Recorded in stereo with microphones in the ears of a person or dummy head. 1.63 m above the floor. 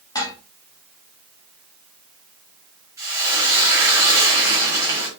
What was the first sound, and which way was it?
Dishes clattering, 20° left (ahead or behind).